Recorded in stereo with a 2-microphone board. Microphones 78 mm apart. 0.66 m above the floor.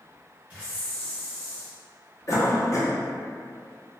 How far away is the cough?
About 0.7 m.